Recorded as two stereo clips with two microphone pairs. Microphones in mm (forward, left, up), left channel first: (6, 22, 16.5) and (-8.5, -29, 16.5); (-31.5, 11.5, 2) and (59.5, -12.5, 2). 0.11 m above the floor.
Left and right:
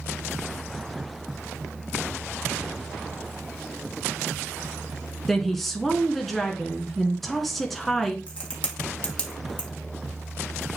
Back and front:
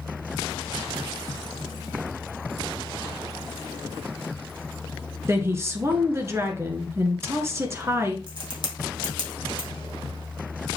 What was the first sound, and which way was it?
A woman speaking, 10° right.